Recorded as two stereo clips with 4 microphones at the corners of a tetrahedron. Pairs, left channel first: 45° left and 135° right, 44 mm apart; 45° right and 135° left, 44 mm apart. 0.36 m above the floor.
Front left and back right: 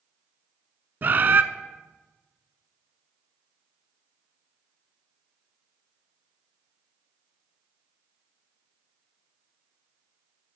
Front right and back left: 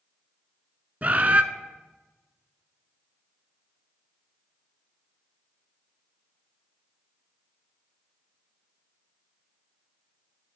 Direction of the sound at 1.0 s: 175° right.